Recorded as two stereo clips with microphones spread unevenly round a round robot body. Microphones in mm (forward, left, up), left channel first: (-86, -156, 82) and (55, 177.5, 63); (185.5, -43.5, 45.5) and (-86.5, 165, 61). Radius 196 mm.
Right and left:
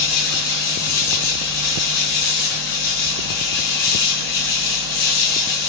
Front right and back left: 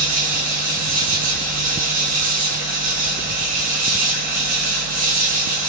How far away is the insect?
About 0.8 m.